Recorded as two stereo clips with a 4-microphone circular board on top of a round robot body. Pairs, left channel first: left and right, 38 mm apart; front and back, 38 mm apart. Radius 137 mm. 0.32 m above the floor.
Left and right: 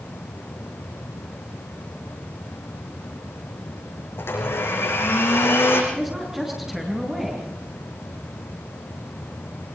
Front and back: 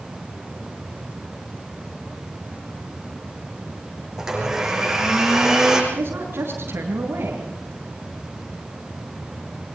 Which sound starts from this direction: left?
A blender, at 4.2 s.